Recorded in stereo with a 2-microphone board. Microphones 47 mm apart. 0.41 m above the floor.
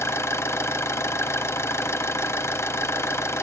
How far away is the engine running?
About 1.0 m.